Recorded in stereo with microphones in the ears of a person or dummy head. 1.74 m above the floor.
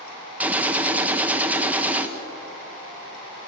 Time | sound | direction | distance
0.4 | a gunshot | 15° right (ahead or behind) | 1.4 m